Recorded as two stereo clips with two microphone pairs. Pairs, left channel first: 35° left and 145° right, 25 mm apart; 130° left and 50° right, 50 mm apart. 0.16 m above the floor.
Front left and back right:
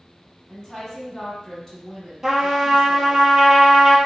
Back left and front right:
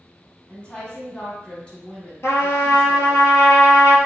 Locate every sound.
0.5 s a woman speaking: 90° left, 1.2 m
2.2 s a trumpet: 145° left, 0.7 m